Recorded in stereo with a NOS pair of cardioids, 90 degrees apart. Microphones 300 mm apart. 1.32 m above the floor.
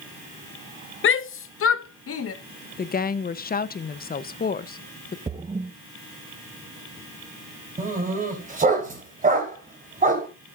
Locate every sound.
1.0 s a shout: 40° left, 0.8 m; by 2.3 s 50° left, 1.6 m
2.8 s a woman speaking: 30° left, 0.9 m
5.3 s a splash: 20° right, 1.3 m
7.8 s a dog barking: 25° right, 4.5 m